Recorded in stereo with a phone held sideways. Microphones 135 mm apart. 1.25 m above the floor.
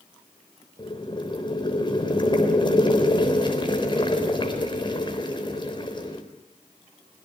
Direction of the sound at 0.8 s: 35° left (ahead or behind).